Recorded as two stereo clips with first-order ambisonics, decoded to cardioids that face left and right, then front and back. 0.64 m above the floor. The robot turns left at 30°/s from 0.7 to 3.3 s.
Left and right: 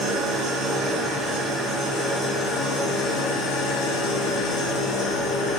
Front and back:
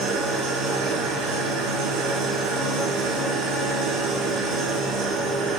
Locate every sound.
0.0 s an engine running: 140° right, 5 m; by 5.6 s 145° left, 5 m